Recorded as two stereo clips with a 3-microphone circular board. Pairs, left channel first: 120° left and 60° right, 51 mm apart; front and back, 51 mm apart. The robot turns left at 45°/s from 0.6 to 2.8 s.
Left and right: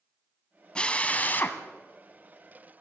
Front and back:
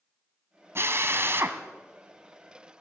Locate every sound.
0.8 s a drill: 175° right, 2 m; by 1.6 s 150° left, 2 m